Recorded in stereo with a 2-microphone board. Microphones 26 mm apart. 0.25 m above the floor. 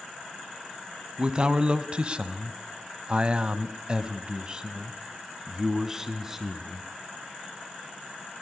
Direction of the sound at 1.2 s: 35° right (ahead or behind).